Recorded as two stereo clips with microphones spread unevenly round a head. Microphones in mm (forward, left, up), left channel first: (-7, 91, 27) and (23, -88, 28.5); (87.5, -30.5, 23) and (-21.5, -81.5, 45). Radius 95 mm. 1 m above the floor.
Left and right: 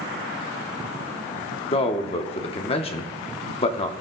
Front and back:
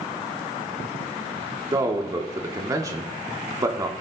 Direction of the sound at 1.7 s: 140° left.